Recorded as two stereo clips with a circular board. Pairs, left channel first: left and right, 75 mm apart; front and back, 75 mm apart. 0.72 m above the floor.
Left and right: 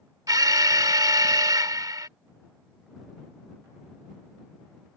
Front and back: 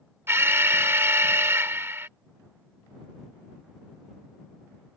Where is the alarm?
120° right.